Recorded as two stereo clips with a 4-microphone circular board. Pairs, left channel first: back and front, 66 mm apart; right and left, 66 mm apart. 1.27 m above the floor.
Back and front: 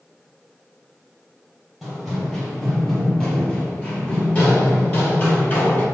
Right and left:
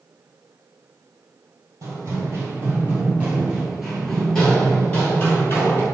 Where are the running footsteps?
85° left, 1.7 m; by 5.8 s 130° right, 1.8 m.